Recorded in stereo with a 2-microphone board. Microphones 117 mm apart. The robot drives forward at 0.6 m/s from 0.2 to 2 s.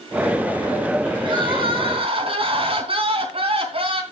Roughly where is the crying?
Right.